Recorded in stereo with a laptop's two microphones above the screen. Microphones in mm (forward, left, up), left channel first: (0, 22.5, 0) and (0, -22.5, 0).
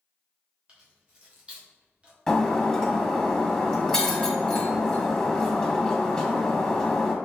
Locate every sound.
0.7 s keys jangling: 25° right (ahead or behind), 1.0 m
2.3 s breaking glass: 15° left (ahead or behind), 1.1 m